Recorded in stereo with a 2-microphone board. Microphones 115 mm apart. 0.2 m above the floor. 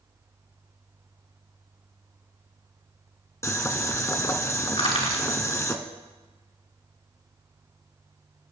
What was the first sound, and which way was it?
Boiling, 25° left (ahead or behind).